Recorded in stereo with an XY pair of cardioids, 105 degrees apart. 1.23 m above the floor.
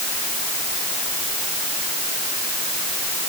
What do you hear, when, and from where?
Only background noise.